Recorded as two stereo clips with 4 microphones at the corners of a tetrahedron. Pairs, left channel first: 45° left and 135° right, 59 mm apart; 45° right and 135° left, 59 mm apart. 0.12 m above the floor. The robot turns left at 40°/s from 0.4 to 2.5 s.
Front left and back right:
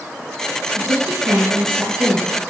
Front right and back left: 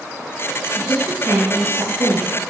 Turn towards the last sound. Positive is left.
turn(degrees=140)